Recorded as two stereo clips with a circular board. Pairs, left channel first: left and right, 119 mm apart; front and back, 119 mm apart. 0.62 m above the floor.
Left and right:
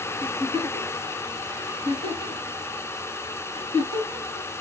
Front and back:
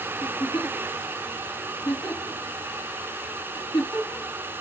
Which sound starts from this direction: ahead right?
A giggle, at 0.2 s.